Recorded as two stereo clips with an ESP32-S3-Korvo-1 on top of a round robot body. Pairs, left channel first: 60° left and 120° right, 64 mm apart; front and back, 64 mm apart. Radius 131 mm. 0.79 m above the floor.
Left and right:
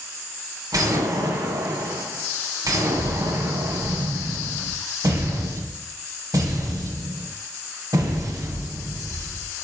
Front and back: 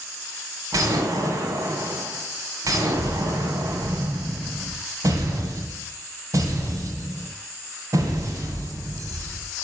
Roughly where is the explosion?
Behind right.